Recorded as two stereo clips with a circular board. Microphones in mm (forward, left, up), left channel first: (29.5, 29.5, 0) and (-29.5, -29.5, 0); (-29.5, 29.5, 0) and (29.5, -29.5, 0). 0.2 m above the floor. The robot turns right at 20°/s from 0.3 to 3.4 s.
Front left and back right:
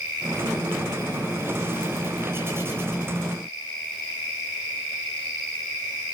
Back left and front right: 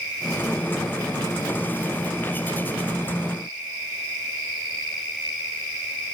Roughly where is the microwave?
I don't hear a microwave.